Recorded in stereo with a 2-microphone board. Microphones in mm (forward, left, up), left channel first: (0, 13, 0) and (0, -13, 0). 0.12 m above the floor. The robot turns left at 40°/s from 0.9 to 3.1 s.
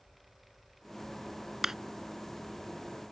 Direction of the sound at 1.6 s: 15° right (ahead or behind).